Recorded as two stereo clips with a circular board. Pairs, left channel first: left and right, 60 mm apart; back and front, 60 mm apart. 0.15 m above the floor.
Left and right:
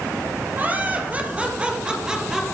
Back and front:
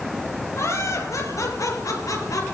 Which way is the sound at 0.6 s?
150° right.